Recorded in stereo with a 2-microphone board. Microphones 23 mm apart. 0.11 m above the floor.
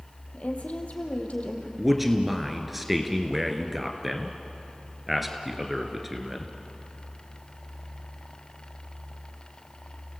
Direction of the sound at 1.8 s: 5° right (ahead or behind).